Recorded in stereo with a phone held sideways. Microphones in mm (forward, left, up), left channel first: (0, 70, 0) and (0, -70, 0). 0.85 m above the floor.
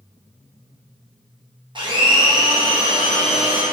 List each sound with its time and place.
1.8 s a blender: 35° right (ahead or behind), 1.1 m